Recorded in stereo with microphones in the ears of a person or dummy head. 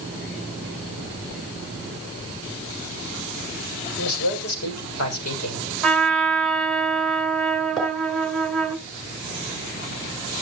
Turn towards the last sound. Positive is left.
turn(degrees=5)  # may be behind; listen again after turning